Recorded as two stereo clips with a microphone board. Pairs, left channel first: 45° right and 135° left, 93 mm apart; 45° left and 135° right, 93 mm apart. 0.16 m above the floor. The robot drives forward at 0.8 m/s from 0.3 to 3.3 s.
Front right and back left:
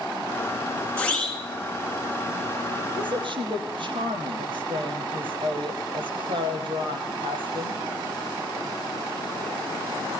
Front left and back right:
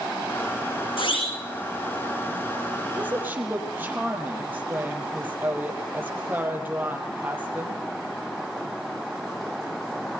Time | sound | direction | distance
1.0 | a siren | 30° left | 9 m
3.0 | a woman speaking | 155° left | 4.5 m